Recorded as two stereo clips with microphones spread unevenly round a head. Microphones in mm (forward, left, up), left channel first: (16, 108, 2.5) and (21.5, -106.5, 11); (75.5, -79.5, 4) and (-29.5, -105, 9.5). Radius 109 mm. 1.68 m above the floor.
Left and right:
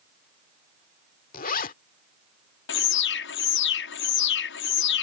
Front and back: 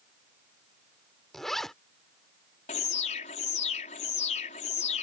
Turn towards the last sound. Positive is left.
turn(degrees=60)